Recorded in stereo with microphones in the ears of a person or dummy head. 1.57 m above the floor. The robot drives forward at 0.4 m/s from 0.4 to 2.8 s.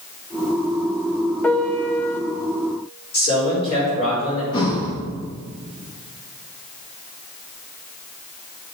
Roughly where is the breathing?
Left.